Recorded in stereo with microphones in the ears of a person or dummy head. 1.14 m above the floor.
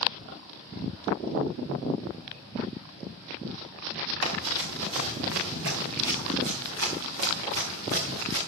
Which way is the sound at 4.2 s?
75° right (ahead or behind).